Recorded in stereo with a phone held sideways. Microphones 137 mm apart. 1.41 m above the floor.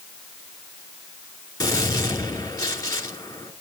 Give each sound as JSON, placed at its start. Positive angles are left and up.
{"t": 1.6, "sound": "a gunshot", "side_deg": 25, "distance_m": 2.5}